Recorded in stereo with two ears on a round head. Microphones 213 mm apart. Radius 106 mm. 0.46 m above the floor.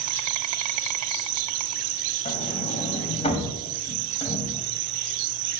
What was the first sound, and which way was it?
An insect, 70° right (ahead or behind).